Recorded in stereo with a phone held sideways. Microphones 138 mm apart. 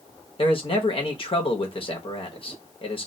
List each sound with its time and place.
0.4 s a man speaking: 40° left (ahead or behind), 0.7 m